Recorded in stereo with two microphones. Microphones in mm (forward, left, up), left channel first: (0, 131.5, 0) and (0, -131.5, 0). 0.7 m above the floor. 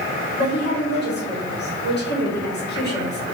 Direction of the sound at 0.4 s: 40° left (ahead or behind).